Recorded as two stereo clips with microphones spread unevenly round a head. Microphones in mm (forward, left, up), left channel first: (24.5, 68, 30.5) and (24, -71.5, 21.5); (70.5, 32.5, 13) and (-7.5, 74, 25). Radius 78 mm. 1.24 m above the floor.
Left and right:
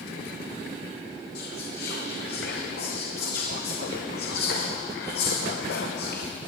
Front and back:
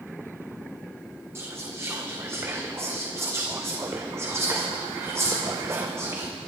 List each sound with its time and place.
1.4 s whispering: 90° left, 1.0 m